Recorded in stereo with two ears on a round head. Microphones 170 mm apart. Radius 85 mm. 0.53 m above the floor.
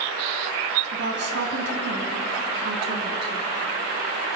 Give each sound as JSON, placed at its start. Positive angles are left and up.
{"t": 0.9, "sound": "a woman speaking", "side_deg": -65, "distance_m": 3.5}